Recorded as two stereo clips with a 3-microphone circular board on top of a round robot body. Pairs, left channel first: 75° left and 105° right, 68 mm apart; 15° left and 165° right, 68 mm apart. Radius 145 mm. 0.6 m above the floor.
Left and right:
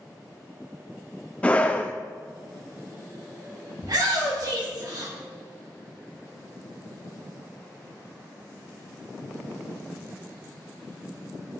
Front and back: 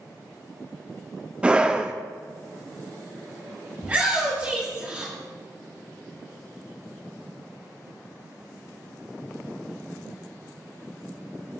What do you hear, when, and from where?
1.4 s a scream: 135° left, 0.8 m
3.8 s a shout: 100° right, 2 m